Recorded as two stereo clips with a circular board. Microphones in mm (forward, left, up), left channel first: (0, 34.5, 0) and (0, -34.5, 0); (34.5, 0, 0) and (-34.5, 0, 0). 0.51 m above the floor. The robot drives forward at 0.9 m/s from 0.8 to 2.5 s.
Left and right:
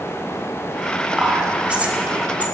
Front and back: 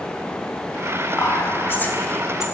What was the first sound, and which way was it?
Whispering, 15° right.